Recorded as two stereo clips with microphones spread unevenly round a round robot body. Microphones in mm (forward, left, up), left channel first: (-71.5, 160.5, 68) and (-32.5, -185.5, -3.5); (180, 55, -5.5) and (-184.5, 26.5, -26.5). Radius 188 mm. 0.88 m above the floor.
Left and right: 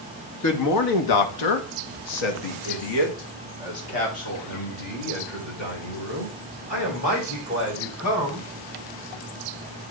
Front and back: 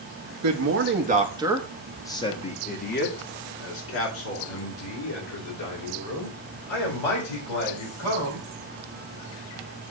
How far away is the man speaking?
About 1.2 m.